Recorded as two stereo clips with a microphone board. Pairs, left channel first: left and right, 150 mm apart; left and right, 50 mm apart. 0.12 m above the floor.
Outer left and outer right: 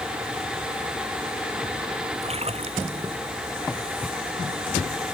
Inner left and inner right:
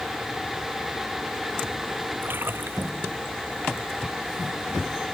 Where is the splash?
40° right (ahead or behind).